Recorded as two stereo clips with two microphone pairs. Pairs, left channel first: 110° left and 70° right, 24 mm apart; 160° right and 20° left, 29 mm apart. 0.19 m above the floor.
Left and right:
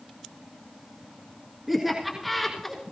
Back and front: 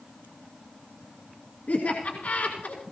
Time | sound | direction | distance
1.7 | laughter | 150° right | 3 m